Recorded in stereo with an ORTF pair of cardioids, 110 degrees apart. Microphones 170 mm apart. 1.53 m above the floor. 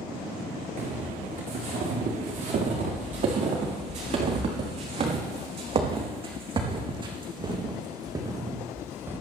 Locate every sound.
0.8 s footsteps: 50° right, 8.5 m; by 9.2 s 15° right, 3.5 m